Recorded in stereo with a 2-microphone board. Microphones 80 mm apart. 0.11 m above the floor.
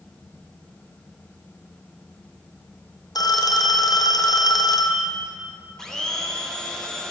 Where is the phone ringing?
55° left (ahead or behind), 2.5 m.